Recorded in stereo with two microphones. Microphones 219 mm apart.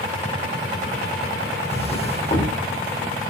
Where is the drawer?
30° left (ahead or behind), 5 m.